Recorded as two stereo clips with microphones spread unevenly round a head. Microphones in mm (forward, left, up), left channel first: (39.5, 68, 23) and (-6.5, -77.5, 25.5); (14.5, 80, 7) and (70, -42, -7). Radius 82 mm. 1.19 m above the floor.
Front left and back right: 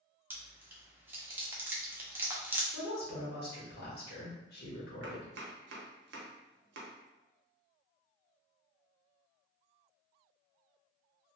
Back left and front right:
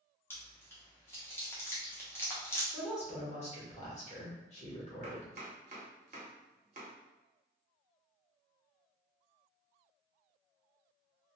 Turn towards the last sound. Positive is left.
turn(degrees=-115)